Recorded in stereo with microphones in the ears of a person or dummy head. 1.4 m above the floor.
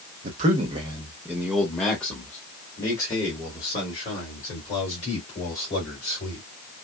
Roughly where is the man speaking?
Right.